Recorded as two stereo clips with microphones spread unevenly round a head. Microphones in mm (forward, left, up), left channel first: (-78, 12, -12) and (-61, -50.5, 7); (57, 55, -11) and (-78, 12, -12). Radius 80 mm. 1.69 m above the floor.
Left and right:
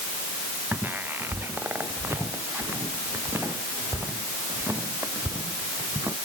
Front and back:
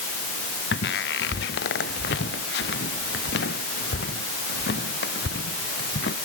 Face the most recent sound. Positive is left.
turn(degrees=0)